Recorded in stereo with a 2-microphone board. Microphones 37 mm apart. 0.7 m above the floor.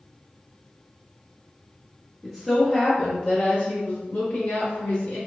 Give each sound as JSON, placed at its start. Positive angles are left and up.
{"t": 2.2, "sound": "a woman speaking", "side_deg": 0, "distance_m": 0.8}